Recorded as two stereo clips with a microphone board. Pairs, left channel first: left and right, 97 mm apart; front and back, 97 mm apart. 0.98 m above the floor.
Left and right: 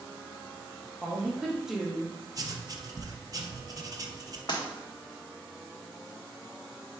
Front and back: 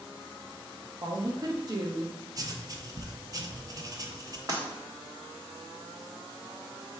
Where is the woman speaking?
175° right, 0.6 m.